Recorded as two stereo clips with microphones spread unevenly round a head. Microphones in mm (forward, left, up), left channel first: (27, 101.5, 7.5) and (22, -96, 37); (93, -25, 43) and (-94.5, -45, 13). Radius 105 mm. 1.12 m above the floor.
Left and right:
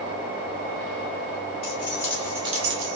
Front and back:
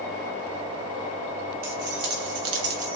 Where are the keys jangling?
155° left, 1.2 m; by 3.0 s 105° right, 0.7 m.